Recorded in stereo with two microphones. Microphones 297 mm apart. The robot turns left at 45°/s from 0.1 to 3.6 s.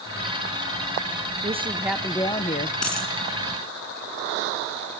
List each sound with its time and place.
1.4 s a woman speaking: 155° right, 1.1 m; by 2.8 s 145° left, 1.1 m
2.8 s a dropped coin: 60° left (ahead or behind), 2.5 m